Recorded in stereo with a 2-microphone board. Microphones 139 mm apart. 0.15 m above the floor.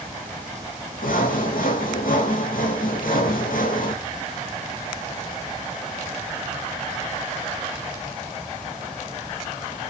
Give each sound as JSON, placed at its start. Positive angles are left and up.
{"t": 1.0, "sound": "sawing", "side_deg": 85, "distance_m": 1.9}